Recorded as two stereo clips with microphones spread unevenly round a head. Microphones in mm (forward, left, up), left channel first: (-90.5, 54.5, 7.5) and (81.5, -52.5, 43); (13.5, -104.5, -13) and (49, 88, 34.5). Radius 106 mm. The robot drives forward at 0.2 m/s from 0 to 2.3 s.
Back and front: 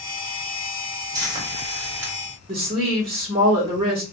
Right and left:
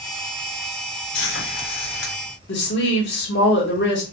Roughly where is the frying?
Right.